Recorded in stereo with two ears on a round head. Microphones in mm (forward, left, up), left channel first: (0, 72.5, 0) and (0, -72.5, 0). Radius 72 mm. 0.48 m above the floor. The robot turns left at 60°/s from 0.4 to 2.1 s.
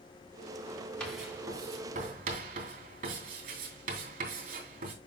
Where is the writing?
10° left (ahead or behind), 3 m; by 4.9 s 55° right (ahead or behind), 3 m.